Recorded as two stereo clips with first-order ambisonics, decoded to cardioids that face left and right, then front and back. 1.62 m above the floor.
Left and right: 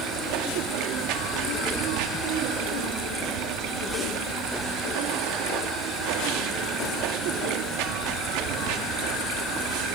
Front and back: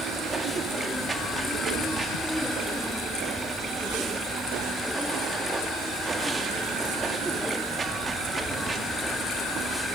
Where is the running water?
105° right, 2.5 m.